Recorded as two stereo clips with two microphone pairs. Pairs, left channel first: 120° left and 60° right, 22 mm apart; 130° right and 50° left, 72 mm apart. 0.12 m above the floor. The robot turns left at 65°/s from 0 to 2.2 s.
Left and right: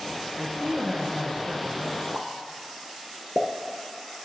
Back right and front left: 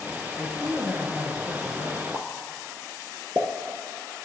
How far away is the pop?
About 0.8 m.